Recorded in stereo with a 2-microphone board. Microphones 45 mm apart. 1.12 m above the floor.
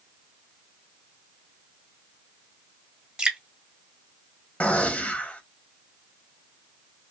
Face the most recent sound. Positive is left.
turn(degrees=30)  # may be behind; listen again after turning